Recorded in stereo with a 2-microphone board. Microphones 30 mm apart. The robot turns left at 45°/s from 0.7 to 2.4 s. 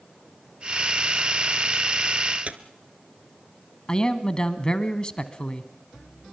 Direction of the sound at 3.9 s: 25° left (ahead or behind).